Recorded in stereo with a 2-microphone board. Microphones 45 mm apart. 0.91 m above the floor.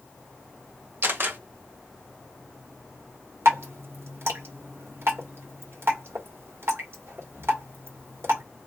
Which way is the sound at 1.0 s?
50° right (ahead or behind).